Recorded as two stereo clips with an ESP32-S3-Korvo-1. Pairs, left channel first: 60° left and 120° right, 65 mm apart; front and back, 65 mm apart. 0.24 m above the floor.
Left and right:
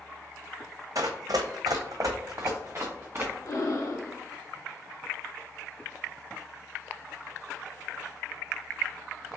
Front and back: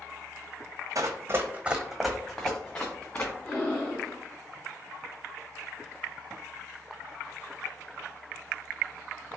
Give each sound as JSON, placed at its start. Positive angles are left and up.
{"t": 0.9, "sound": "running footsteps", "azimuth_deg": -150, "distance_m": 0.8}
{"t": 3.5, "sound": "breathing", "azimuth_deg": 70, "distance_m": 1.7}